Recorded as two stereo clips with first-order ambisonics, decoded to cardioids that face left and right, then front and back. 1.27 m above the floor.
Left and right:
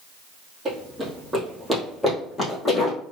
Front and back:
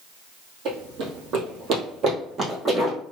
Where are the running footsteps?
165° right, 2.0 m; by 3.0 s 120° left, 1.4 m.